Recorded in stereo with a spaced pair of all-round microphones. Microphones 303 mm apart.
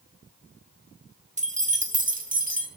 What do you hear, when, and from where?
1.4 s keys jangling: 25° right (ahead or behind), 1.0 m